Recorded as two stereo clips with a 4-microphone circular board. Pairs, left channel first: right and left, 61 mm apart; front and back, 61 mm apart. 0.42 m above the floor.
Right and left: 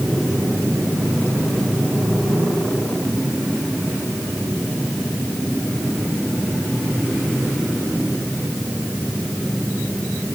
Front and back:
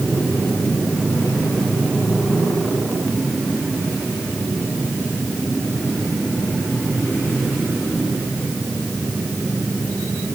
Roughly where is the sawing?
I don't hear sawing.